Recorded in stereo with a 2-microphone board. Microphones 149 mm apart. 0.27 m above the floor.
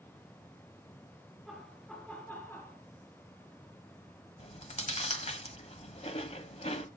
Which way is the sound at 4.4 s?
45° left (ahead or behind).